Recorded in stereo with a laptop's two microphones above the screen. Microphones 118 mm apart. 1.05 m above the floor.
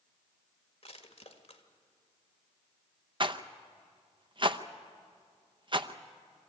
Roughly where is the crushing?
Left.